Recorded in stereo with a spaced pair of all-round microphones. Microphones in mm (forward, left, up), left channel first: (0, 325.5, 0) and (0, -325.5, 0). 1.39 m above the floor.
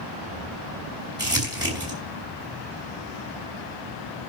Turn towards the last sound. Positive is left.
turn(degrees=-5)  # may be behind; listen again after turning